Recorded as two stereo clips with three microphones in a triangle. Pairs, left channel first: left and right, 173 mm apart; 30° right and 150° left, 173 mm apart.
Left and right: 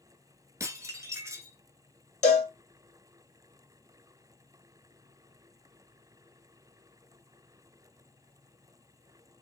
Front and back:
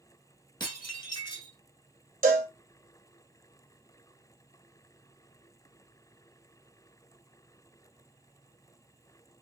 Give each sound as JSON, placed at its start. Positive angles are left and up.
{"t": 0.6, "sound": "dishes clattering", "azimuth_deg": -45, "distance_m": 0.9}
{"t": 2.2, "sound": "a cowbell", "azimuth_deg": 130, "distance_m": 0.8}